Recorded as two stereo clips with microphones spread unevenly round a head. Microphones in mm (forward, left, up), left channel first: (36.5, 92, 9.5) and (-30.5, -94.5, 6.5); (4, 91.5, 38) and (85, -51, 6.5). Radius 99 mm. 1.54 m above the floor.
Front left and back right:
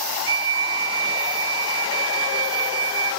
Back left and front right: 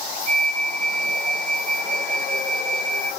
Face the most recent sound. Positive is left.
turn(degrees=-45)